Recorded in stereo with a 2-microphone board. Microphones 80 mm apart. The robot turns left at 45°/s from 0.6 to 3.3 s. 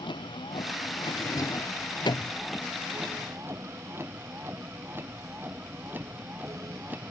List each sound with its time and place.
0.0 s a vehicle: 80° left; by 7.1 s 20° right (ahead or behind)
1.2 s a drawer: 40° left (ahead or behind); by 2.3 s 70° left (ahead or behind)